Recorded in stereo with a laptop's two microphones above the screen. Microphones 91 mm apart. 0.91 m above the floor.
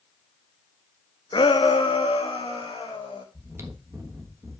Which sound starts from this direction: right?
Chewing, at 3.3 s.